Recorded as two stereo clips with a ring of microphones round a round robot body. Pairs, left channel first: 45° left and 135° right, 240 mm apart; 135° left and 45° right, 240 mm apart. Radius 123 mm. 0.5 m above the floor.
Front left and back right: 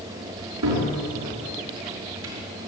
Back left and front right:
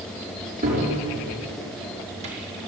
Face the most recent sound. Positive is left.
turn(degrees=-110)